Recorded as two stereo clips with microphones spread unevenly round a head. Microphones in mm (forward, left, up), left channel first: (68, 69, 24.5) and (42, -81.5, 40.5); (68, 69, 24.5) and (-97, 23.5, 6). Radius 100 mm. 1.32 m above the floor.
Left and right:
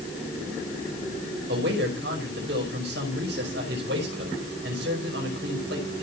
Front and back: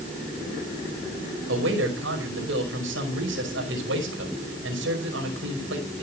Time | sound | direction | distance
1.5 | a man speaking | 130° right | 5.5 m